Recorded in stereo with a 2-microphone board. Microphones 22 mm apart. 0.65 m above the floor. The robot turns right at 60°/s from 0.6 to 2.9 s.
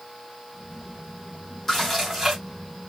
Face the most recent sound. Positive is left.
turn(degrees=-120)